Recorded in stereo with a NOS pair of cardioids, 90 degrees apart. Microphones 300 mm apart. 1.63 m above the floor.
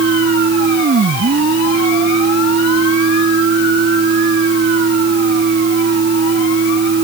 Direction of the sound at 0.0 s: 40° right.